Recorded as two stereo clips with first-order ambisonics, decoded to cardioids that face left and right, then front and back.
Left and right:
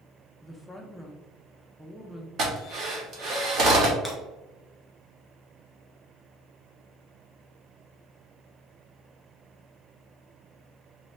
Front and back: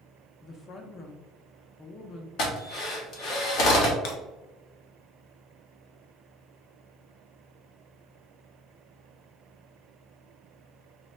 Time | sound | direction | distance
0.4 | a woman speaking | 10° left | 0.6 m
2.4 | a drill | 40° right | 1.2 m
4.0 | breaking glass | straight ahead | 1.3 m